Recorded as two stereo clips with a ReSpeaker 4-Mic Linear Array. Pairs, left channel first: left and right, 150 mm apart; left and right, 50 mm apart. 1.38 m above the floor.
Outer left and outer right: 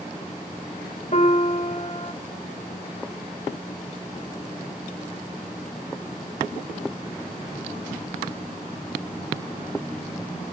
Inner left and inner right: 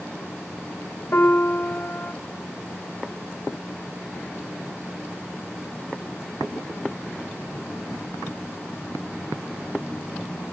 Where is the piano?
50° left (ahead or behind), 2 m.